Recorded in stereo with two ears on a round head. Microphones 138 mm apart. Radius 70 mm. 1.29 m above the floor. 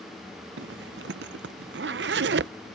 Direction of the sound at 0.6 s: 80° right.